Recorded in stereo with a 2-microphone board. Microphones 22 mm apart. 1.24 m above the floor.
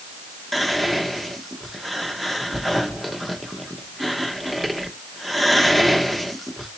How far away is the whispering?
About 0.9 m.